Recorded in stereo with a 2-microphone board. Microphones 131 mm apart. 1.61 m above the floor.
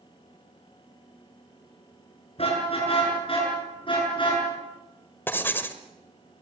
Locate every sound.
2.4 s a car horn: 50° left (ahead or behind), 8 m; by 4.5 s 40° left (ahead or behind), 8 m
5.3 s writing: 15° left (ahead or behind), 1.4 m